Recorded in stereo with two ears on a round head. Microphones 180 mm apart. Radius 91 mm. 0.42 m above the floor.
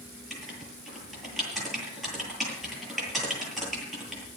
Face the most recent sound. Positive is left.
turn(degrees=0)  # may be behind; listen again after turning